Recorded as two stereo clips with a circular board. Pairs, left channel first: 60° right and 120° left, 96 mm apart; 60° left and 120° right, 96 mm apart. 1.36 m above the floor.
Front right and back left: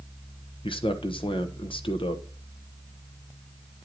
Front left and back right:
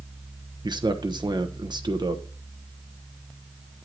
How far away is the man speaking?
About 0.9 m.